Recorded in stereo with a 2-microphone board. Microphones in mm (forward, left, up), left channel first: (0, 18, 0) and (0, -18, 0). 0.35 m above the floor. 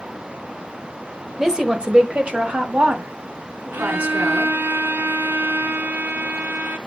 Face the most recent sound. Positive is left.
turn(degrees=-75)  # may be behind; listen again after turning